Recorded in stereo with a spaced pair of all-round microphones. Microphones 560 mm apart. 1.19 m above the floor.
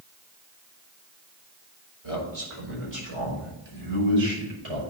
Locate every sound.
2.0 s a man speaking: 75° right (ahead or behind), 4.5 m; by 4.8 s 60° right (ahead or behind), 6 m